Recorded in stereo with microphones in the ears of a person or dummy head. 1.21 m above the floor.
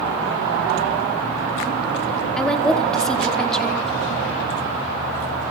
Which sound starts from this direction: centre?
A woman speaking, at 2.4 s.